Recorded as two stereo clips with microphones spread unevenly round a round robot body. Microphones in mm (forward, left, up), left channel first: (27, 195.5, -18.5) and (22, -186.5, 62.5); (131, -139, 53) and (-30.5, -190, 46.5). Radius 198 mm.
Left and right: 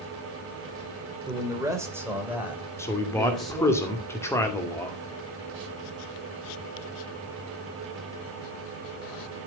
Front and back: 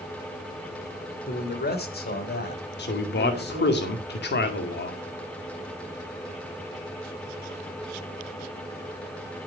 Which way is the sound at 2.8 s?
10° left.